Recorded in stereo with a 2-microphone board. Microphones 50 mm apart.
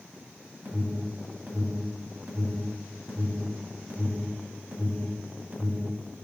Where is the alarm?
40° right (ahead or behind), 2.5 m.